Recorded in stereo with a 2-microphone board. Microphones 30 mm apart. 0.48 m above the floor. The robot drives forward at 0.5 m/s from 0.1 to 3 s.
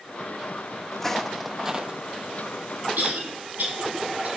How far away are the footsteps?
About 1.0 m.